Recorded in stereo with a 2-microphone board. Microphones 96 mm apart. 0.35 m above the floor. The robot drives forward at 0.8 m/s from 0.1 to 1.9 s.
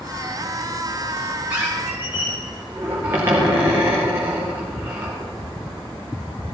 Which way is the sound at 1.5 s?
20° right (ahead or behind).